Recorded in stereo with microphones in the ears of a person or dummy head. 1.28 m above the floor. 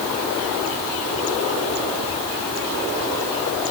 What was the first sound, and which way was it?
Only background noise.